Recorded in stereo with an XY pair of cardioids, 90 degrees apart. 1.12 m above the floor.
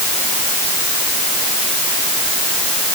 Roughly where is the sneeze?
I don't hear a sneeze.